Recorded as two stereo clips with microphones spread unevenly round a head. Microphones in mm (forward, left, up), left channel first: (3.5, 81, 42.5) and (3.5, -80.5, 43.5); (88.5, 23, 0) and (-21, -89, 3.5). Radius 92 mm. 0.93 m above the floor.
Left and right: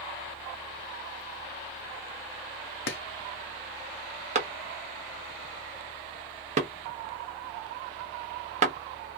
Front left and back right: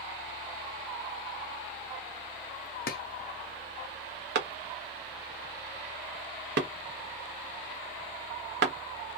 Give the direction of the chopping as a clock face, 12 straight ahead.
9 o'clock.